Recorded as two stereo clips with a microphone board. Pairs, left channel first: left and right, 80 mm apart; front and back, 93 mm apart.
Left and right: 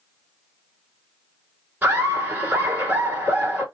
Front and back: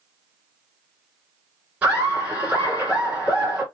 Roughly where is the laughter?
Behind right.